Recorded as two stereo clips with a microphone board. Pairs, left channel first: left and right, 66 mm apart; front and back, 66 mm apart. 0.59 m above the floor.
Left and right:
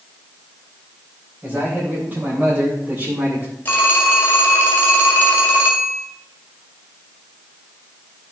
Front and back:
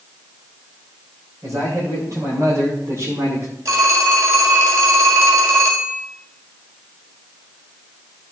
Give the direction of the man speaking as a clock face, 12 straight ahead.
5 o'clock.